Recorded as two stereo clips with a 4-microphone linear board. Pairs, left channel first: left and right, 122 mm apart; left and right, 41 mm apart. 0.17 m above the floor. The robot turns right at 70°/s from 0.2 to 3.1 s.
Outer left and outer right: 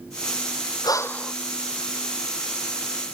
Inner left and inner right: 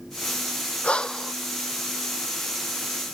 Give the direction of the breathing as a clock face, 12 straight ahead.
7 o'clock.